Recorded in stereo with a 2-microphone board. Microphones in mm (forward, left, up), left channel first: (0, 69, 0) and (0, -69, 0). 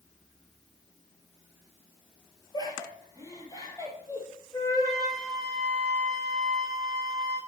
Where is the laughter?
30° left (ahead or behind), 4 m; by 4.3 s 20° left (ahead or behind), 5 m.